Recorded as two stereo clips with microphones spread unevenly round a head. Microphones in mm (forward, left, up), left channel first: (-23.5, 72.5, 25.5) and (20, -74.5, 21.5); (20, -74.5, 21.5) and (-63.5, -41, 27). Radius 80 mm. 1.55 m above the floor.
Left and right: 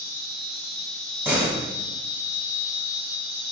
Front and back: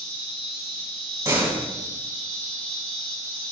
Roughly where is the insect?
Ahead right.